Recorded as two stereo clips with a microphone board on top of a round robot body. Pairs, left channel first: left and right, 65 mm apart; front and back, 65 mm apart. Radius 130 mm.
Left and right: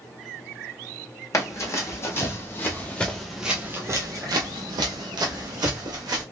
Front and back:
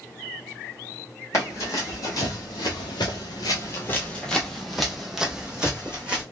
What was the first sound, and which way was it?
Running footsteps, 50° left.